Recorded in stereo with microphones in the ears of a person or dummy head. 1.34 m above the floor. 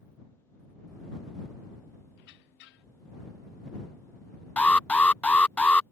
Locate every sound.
2.2 s a squeak: 60° left (ahead or behind)
4.6 s an alarm: 10° left (ahead or behind)